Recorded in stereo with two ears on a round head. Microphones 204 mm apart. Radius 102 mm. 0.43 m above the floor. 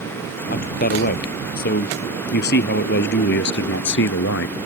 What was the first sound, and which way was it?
A man speaking, 45° left (ahead or behind).